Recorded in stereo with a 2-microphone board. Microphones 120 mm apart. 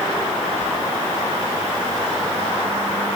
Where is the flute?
I don't hear a flute.